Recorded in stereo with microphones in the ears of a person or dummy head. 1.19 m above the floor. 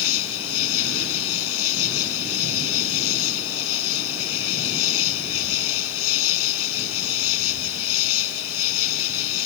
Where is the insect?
80° left.